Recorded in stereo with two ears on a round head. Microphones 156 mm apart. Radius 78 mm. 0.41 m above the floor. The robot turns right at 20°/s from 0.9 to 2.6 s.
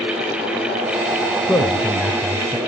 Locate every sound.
1.4 s a man speaking: 10° left (ahead or behind), 1.2 m; by 2.6 s 10° right (ahead or behind), 1.2 m